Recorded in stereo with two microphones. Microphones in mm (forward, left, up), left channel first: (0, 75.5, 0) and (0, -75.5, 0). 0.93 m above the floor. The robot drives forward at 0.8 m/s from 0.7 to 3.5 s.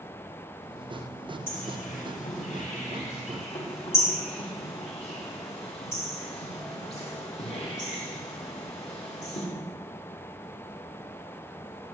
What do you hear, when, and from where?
1.5 s a bird: 70° left (ahead or behind), 2.5 m; by 9.5 s 45° left (ahead or behind), 3.5 m